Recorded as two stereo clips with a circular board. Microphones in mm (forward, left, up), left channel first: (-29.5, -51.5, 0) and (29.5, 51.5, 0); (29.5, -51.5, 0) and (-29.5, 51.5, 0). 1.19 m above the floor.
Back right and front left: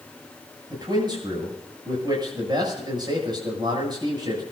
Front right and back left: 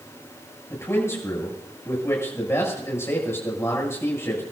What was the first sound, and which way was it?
A man speaking, 10° left.